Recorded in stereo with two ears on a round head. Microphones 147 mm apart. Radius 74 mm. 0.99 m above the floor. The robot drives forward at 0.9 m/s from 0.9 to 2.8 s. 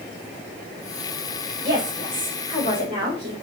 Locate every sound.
1.6 s a woman speaking: 25° right (ahead or behind), 4.5 m; by 3.3 s 30° right (ahead or behind), 3.5 m